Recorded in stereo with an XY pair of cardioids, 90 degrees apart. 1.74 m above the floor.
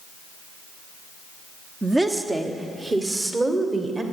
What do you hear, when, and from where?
1.8 s a woman speaking: 20° right, 0.8 m; by 4.0 s 35° right, 2.0 m